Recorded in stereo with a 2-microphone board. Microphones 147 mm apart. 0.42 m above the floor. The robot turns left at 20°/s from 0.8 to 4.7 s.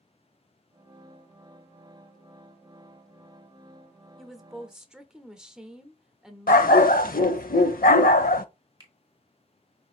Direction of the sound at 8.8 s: 30° right (ahead or behind).